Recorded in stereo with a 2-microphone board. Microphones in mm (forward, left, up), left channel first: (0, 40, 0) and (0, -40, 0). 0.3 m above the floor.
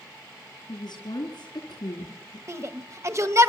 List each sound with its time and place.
0.7 s a woman speaking: 65° left (ahead or behind), 4.5 m
2.5 s a shout: 40° right (ahead or behind), 1.2 m